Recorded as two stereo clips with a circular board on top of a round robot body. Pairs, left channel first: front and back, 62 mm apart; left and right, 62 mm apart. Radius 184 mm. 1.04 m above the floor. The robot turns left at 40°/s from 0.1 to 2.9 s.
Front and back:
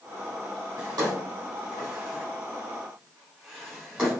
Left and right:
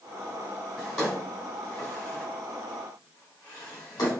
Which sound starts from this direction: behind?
A drawer, at 0.8 s.